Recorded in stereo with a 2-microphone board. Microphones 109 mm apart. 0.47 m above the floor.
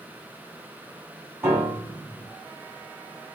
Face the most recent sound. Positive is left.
turn(degrees=-15)  # may be behind; listen again after turning